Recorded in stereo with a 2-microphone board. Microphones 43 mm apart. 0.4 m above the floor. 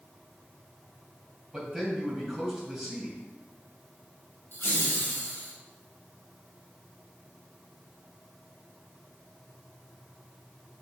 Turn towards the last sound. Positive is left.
turn(degrees=60)  # may be behind; listen again after turning